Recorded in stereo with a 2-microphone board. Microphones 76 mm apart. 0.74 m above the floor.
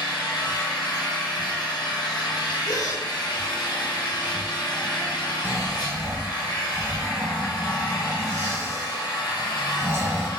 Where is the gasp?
65° left (ahead or behind), 1.8 m.